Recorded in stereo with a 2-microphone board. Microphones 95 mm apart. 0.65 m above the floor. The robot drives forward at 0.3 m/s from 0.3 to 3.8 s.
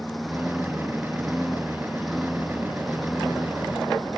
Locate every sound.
0.0 s a lawn mower: centre (ahead or behind)